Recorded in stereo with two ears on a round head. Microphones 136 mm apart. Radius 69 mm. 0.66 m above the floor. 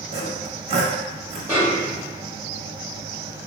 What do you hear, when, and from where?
0.1 s sawing: 45° right (ahead or behind), 0.6 m
1.5 s a snare drum: 15° right (ahead or behind), 1.1 m